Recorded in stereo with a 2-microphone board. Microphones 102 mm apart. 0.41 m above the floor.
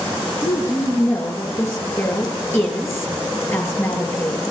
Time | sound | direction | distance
0.4 | a woman speaking | 25° left (ahead or behind) | 7.5 m